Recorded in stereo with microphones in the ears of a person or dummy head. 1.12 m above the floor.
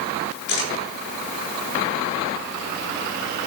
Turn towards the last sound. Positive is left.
turn(degrees=75)  # may be behind; listen again after turning